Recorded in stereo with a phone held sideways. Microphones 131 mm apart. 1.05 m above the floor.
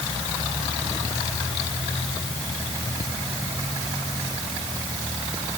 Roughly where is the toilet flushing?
I don't hear a toilet flushing.